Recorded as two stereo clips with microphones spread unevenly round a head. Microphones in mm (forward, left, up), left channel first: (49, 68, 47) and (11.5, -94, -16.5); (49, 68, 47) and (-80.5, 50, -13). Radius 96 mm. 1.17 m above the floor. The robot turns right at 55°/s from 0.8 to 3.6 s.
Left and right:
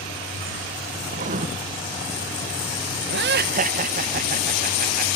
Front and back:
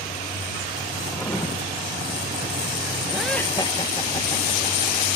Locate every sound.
1.1 s writing: 95° right; by 1.5 s 75° right
3.1 s laughter: 90° right; by 5.2 s 60° right